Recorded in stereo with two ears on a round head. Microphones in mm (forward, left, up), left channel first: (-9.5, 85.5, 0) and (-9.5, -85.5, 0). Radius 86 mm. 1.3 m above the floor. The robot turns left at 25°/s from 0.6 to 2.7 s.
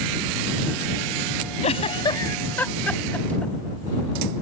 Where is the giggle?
35° left (ahead or behind); by 3.5 s 10° left (ahead or behind).